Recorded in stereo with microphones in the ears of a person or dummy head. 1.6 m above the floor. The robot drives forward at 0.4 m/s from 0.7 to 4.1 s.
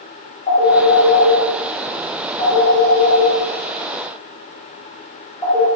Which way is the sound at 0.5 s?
40° left (ahead or behind).